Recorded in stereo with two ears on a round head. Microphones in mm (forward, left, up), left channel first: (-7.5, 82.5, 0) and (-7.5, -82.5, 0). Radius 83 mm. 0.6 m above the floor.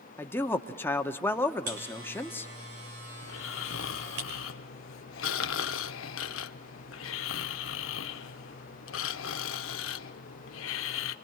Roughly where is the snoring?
Left.